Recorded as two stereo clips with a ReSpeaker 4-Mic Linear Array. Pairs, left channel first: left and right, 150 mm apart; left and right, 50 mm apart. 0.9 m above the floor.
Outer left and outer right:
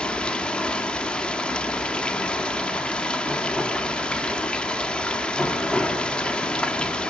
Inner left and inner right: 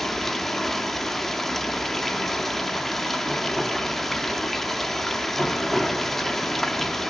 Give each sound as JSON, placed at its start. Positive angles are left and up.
{"t": 0.0, "sound": "running water", "side_deg": 5, "distance_m": 1.4}